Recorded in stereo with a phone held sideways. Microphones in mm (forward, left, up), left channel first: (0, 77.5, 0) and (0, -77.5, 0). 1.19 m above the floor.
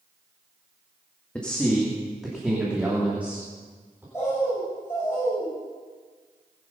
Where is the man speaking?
10° left (ahead or behind), 1.8 m; by 4.0 s 15° right (ahead or behind), 3.5 m.